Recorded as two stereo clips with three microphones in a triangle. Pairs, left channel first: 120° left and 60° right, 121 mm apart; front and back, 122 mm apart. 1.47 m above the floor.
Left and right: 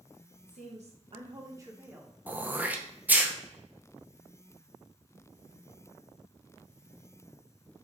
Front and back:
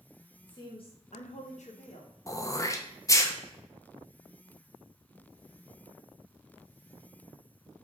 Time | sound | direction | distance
0.5 | a woman speaking | 60° right | 0.8 m
2.3 | throat clearing | straight ahead | 0.5 m